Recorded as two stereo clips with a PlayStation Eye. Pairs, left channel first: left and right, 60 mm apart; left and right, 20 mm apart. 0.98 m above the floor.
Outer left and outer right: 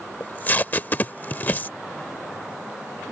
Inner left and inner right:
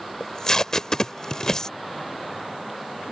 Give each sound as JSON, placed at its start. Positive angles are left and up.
{"t": 0.2, "sound": "tape being pulled", "side_deg": 30}